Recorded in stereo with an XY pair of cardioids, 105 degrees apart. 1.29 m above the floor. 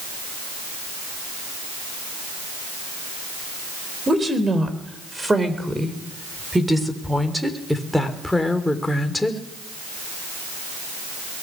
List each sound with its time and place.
4.1 s a woman speaking: 25° right, 4.5 m; by 9.4 s 15° left, 3 m